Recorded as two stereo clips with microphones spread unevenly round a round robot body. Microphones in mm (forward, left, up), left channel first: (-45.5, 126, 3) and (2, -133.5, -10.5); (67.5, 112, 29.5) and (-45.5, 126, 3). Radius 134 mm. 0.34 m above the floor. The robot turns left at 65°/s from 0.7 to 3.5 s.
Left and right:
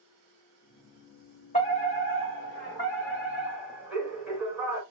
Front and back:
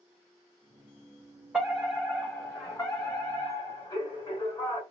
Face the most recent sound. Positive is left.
turn(degrees=-10)